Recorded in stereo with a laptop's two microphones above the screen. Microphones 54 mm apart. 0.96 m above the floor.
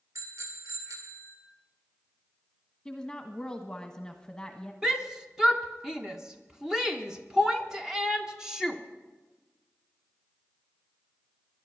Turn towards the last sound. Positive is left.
turn(degrees=-10)  # may be behind; listen again after turning